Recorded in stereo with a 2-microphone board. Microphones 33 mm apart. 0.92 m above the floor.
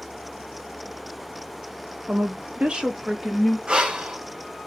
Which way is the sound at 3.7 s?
30° right (ahead or behind).